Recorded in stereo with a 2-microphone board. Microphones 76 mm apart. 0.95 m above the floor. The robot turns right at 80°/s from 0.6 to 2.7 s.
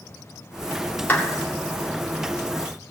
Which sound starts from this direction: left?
A clap, at 1.1 s.